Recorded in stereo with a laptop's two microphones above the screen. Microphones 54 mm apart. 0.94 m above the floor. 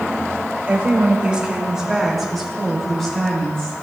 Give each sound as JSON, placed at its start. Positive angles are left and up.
{"t": 0.7, "sound": "a woman speaking", "side_deg": -30, "distance_m": 2.0}